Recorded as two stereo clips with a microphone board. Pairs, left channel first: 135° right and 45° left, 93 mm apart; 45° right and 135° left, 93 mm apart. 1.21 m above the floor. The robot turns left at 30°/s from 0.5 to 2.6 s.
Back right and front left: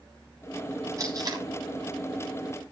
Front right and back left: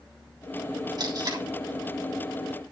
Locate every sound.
1.0 s tape being pulled: 95° left, 3.5 m; by 1.4 s 85° left, 3.5 m